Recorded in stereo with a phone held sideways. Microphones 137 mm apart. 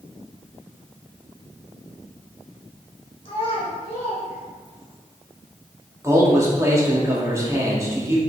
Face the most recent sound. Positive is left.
turn(degrees=-20)  # may be behind; listen again after turning